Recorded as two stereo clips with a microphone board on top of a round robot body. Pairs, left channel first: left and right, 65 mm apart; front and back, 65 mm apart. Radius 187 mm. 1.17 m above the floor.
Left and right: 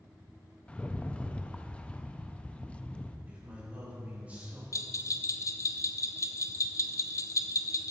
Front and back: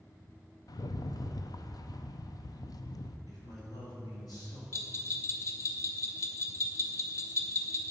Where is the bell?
45° left, 0.5 m.